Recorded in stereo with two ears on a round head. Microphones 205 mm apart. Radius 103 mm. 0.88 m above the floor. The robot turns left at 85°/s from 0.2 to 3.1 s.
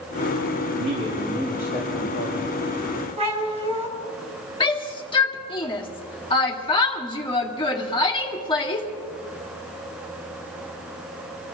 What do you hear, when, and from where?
0.7 s a man speaking: 130° right, 5 m; by 2.6 s 75° left, 5 m
3.2 s a cat meowing: 30° right (ahead or behind), 2.5 m
4.6 s a shout: 20° left (ahead or behind), 2.5 m